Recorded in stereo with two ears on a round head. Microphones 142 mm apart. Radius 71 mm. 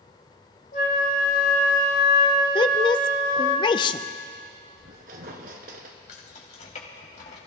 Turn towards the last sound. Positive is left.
turn(degrees=45)  # may be behind; listen again after turning